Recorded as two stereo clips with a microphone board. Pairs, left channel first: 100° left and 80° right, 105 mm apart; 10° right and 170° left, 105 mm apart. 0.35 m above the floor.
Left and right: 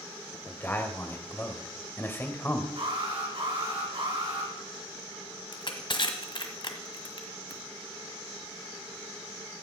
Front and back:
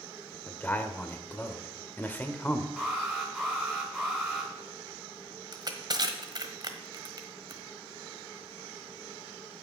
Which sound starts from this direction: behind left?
Crushing, at 5.5 s.